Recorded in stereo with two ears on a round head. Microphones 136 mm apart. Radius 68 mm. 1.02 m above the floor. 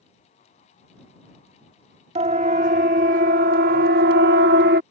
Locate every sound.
2.1 s a siren: 45° right (ahead or behind); by 4.8 s 70° right (ahead or behind)